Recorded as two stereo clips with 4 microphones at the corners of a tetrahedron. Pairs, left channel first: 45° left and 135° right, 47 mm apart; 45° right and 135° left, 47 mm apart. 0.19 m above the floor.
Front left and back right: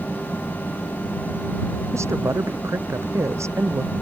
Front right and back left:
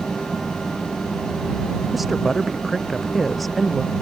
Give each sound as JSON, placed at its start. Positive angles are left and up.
{"t": 1.9, "sound": "a woman speaking", "azimuth_deg": -135}